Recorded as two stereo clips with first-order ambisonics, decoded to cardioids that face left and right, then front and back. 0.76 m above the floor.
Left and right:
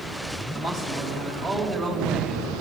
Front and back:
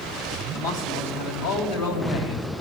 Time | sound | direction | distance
0.5 | a man speaking | 20° left | 4.5 m